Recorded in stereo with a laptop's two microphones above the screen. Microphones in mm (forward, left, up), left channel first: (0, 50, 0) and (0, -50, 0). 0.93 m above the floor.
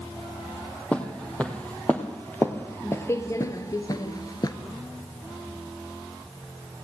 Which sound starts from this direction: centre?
Footsteps, at 0.9 s.